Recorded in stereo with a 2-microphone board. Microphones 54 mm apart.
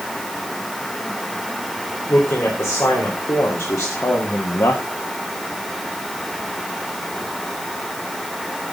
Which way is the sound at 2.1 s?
60° left (ahead or behind).